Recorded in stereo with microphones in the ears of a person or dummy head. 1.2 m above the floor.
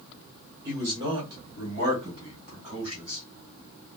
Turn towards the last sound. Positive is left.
turn(degrees=-45)  # may be behind; listen again after turning